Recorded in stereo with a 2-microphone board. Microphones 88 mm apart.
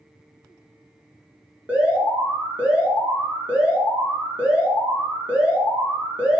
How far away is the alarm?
About 4 m.